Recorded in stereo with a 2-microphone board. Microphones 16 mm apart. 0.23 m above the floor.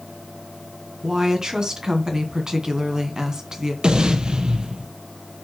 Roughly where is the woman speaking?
Right.